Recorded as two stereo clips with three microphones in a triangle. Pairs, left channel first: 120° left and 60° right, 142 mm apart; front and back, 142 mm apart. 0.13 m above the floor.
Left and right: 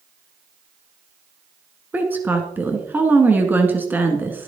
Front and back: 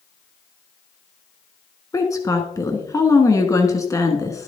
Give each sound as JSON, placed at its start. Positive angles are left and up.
{"t": 1.9, "sound": "a woman speaking", "azimuth_deg": -10, "distance_m": 1.4}